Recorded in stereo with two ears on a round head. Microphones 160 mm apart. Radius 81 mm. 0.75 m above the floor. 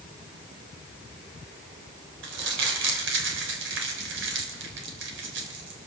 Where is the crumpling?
75° right (ahead or behind), 3.5 m.